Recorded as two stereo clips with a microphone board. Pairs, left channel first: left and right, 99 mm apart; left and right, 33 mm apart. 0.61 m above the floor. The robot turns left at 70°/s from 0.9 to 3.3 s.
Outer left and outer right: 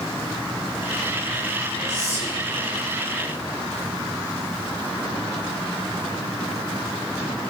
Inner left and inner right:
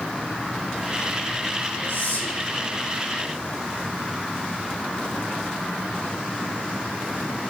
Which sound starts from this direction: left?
Whispering, at 1.9 s.